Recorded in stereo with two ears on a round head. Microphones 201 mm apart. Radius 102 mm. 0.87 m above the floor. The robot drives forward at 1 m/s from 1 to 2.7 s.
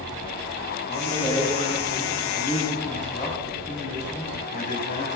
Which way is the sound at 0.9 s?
25° left (ahead or behind).